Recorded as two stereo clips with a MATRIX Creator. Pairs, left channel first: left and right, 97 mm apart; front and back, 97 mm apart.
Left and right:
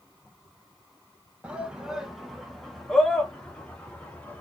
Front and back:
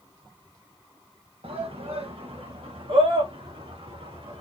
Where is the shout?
170° right, 1.6 m; by 4.4 s 165° left, 3 m.